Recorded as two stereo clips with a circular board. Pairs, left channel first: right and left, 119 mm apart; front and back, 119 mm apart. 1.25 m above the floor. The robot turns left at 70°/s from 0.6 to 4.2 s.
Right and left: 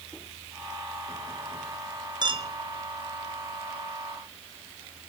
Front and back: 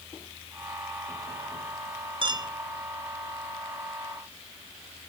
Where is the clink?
140° left, 0.9 m; by 2.5 s 120° left, 0.9 m.